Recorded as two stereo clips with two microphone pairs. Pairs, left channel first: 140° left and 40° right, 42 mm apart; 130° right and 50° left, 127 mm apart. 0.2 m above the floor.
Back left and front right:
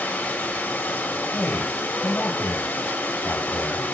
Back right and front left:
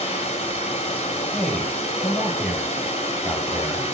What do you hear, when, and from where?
0.0 s running water: 170° right, 6.5 m
1.3 s a man speaking: 140° left, 6 m